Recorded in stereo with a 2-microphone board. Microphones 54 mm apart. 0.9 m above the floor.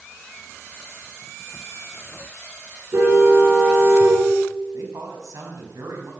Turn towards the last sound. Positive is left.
turn(degrees=-75)  # may be behind; listen again after turning